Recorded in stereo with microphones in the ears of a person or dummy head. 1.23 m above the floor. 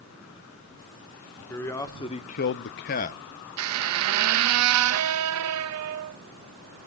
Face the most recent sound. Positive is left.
turn(degrees=-80)